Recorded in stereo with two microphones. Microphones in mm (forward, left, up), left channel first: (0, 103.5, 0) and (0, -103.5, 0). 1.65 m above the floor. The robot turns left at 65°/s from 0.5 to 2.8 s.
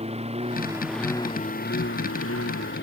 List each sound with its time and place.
0.0 s a lawn mower: 150° right; by 2.8 s 60° left